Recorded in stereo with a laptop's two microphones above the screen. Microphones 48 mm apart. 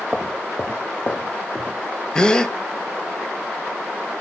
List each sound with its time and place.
0.1 s footsteps: 15° left (ahead or behind), 1.1 m; by 1.8 s 30° left (ahead or behind), 1.0 m
2.1 s a gasp: 15° left (ahead or behind), 1.0 m